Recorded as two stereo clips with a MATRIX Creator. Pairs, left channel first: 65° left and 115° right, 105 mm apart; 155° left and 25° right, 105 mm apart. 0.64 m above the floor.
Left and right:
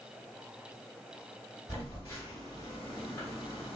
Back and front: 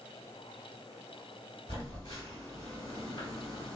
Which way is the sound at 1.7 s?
125° left.